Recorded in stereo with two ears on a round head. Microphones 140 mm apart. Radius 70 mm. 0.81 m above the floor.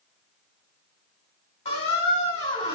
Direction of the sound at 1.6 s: 40° left (ahead or behind).